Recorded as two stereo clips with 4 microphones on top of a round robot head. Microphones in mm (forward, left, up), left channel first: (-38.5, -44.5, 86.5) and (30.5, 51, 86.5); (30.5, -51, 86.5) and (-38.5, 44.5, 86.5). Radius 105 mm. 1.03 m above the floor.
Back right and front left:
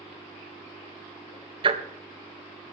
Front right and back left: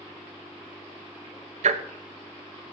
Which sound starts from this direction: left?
Ticking, at 1.6 s.